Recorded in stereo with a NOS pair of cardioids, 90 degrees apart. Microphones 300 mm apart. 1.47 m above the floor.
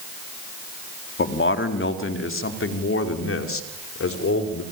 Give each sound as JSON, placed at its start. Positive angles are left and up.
{"t": 1.2, "sound": "a man speaking", "azimuth_deg": 40, "distance_m": 4.0}